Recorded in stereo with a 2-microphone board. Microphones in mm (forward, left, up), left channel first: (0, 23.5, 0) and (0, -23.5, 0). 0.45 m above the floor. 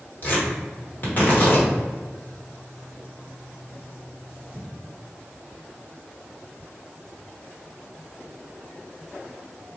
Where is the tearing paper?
40° left (ahead or behind), 1.1 m.